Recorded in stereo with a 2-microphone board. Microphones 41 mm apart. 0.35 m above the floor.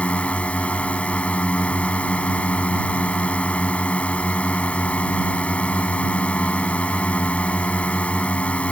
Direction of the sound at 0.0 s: 35° left (ahead or behind).